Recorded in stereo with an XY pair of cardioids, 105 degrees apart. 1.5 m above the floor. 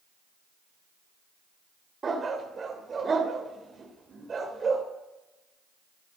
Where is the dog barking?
35° right, 2.5 m.